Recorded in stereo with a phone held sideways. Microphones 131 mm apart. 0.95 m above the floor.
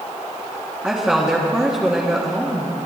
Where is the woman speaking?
5° right (ahead or behind), 1.8 m.